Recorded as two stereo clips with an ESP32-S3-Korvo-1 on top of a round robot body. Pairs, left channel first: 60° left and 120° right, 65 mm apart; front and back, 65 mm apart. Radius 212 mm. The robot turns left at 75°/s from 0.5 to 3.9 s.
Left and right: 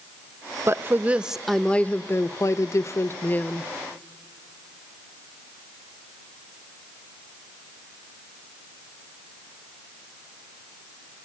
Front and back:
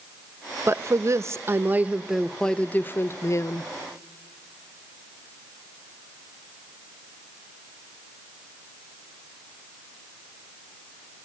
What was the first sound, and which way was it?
A woman speaking, 150° right.